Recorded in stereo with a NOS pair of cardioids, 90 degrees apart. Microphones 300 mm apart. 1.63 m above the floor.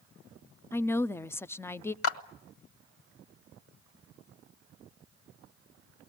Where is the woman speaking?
10° left, 0.6 m.